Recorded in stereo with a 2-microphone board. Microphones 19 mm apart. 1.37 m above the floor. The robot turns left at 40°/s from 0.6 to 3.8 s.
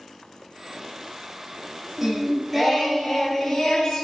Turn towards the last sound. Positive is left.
turn(degrees=135)